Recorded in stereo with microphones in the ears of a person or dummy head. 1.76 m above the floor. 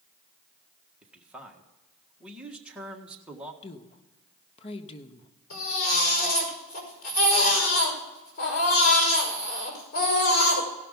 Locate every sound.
1.0 s a man speaking: 5° right (ahead or behind), 1.6 m
3.6 s a woman speaking: 30° left (ahead or behind), 1.0 m
5.5 s a baby crying: 45° left (ahead or behind), 5 m